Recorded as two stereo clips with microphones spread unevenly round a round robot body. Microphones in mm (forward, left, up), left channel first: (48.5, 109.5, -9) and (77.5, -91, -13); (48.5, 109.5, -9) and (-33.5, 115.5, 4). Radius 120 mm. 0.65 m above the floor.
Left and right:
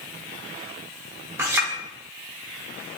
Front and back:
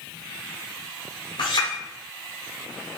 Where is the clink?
5° right, 1.1 m.